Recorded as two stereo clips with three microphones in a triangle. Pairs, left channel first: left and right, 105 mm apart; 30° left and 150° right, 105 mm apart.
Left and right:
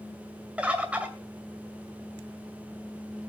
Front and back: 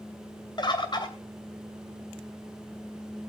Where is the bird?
15° right, 2.5 m.